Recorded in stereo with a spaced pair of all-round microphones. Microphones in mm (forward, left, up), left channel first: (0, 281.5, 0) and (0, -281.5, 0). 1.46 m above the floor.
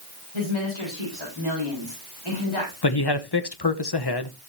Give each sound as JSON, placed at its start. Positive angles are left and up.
{"t": 0.3, "sound": "a woman speaking", "side_deg": 55, "distance_m": 7.0}
{"t": 2.8, "sound": "a man speaking", "side_deg": 45, "distance_m": 1.0}